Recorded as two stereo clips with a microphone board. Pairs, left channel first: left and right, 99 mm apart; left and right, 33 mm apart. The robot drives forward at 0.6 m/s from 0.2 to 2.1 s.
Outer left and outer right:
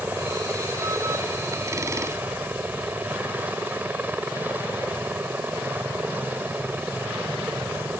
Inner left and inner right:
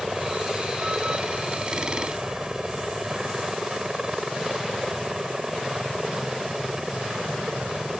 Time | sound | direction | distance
0.0 | a helicopter | 20° right (ahead or behind) | ?